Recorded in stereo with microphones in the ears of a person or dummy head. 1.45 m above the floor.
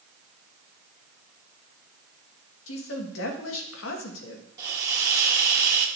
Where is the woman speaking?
80° left, 1.4 m.